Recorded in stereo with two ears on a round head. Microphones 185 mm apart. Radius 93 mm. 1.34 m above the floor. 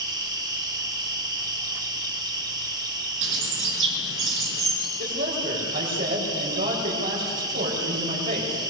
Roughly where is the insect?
Right.